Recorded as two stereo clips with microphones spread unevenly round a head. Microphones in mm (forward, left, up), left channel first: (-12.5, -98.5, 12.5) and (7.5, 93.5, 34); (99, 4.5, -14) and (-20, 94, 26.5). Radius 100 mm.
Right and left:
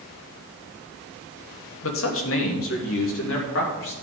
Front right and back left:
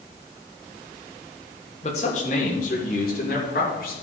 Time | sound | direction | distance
1.8 | a man speaking | 90° right | 1.5 m